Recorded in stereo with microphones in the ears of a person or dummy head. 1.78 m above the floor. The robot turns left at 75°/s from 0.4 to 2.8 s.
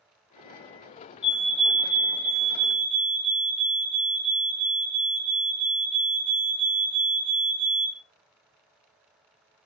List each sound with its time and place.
1.2 s a fire alarm: 40° left, 1.1 m; by 8.0 s 80° right, 1.1 m